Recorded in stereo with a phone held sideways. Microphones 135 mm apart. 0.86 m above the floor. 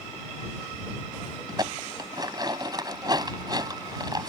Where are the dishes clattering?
30° right (ahead or behind).